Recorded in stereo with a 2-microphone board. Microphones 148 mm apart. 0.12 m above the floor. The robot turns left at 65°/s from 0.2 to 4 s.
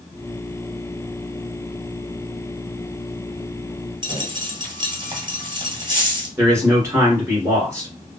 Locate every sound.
4.0 s a dropped coin: 30° right (ahead or behind), 1.2 m
6.4 s a man speaking: 20° right (ahead or behind), 1.5 m